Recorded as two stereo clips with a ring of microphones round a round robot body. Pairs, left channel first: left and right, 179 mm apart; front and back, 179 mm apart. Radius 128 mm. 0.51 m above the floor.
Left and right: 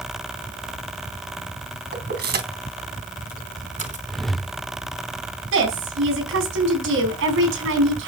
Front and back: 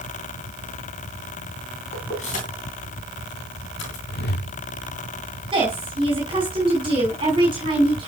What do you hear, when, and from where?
1.9 s keys jangling: 65° right, 3 m; by 4.0 s 45° right, 4 m
4.1 s a whoosh: straight ahead, 1.2 m
5.5 s a woman speaking: 110° right, 4.5 m